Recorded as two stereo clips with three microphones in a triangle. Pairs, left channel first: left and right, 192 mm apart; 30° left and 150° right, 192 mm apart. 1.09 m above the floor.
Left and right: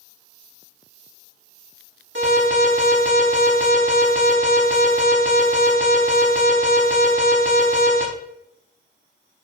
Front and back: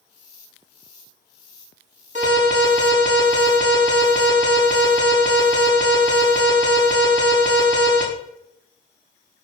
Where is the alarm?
100° right, 5 m.